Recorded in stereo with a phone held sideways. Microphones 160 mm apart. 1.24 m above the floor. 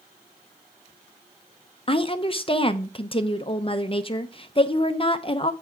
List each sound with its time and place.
1.9 s a woman speaking: 35° left (ahead or behind), 0.6 m